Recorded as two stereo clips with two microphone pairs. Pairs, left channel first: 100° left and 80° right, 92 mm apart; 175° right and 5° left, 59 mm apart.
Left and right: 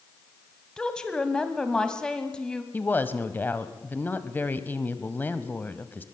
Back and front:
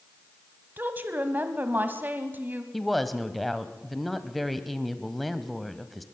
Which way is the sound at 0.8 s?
25° left.